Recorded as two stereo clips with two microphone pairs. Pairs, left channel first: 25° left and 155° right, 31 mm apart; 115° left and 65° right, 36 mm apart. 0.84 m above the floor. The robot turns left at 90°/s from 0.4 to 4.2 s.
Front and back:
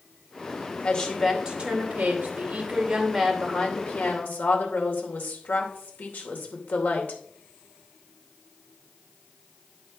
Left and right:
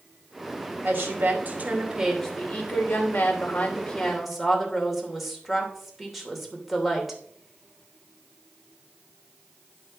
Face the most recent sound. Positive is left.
turn(degrees=20)